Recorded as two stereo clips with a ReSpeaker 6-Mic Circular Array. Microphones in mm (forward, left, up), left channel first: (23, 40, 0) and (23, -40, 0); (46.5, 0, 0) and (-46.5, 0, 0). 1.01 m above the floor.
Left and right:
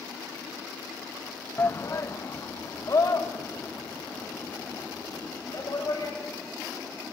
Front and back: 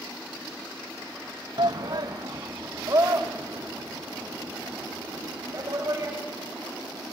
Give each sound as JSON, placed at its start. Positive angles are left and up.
{"t": 1.6, "sound": "a shout", "azimuth_deg": 150, "distance_m": 0.7}